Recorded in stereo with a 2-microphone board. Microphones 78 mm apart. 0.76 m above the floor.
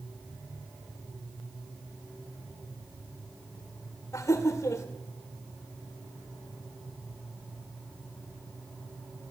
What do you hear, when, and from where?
4.1 s laughter: 40° left (ahead or behind), 2 m